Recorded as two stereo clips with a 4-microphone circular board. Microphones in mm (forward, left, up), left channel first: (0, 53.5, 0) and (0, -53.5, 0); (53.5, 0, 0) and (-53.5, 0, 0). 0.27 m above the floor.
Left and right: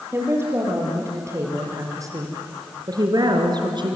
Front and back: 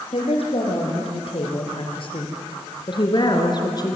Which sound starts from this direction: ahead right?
A woman speaking, at 0.1 s.